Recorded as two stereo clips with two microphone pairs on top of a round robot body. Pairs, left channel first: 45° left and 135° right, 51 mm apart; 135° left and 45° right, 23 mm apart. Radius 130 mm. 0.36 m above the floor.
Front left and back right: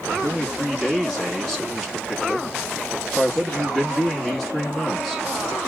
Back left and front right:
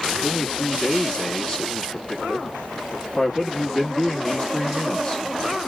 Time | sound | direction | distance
0.2 | a man speaking | 155° left | 1.5 m